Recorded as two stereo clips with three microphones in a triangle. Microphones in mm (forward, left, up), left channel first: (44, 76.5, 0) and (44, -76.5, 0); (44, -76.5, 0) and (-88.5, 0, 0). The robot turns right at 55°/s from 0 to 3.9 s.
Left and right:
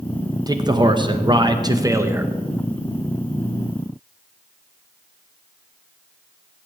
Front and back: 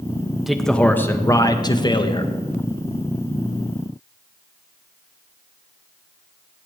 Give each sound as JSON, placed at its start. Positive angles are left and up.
{"t": 0.5, "sound": "a man speaking", "azimuth_deg": -125, "distance_m": 0.8}